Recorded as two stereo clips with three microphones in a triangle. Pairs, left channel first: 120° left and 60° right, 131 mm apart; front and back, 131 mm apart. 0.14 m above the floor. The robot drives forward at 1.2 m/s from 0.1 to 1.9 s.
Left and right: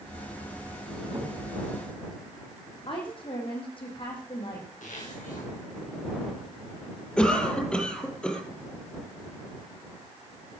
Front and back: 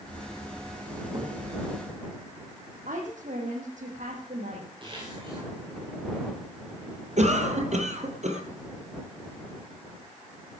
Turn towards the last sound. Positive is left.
turn(degrees=-160)